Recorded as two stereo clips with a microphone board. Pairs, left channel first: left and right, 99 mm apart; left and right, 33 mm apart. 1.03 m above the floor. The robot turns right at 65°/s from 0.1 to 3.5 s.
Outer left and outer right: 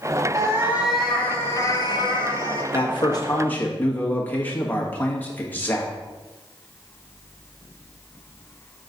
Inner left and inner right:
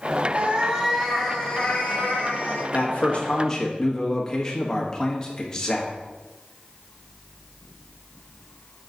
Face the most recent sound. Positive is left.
turn(degrees=160)